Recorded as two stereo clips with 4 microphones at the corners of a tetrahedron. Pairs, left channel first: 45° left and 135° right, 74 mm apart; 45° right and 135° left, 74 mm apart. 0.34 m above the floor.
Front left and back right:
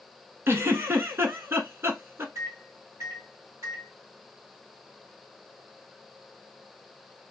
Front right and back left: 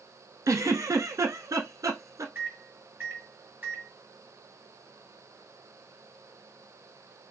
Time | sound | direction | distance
0.5 | a giggle | 170° left | 0.9 m
2.4 | a microwave | 170° right | 1.7 m